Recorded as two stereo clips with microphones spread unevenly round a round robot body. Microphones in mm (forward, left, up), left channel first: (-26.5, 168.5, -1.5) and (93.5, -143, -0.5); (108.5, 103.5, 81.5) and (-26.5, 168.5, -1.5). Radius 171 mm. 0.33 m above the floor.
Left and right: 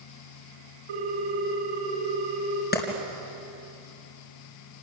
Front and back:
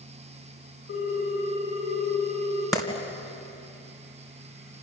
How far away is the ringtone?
About 8 m.